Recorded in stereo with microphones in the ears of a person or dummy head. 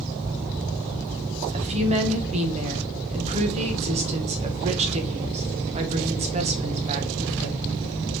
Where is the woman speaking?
35° right (ahead or behind), 1.0 m.